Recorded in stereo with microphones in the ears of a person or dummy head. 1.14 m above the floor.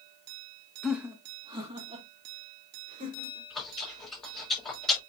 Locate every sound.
0.8 s laughter: centre (ahead or behind), 1.5 m; by 3.4 s 40° right (ahead or behind), 5 m
3.5 s chewing: 5° left (ahead or behind), 5 m